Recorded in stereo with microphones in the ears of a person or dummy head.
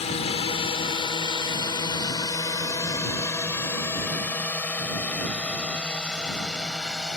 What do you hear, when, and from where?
0.0 s a drone: 35° left (ahead or behind); by 7.2 s centre (ahead or behind)